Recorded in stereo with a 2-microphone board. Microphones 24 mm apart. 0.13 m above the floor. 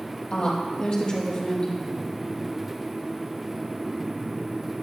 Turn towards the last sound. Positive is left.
turn(degrees=45)  # may be behind; listen again after turning